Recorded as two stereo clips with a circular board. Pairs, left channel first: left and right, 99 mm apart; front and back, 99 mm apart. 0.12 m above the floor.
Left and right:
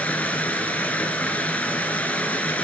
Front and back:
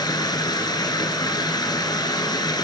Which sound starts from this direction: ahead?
Running water, at 0.0 s.